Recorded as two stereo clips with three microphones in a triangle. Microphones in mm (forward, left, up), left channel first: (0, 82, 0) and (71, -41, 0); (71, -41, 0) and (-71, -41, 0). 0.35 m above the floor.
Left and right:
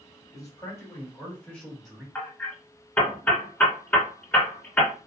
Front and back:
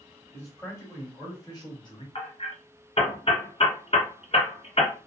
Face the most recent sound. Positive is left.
turn(degrees=40)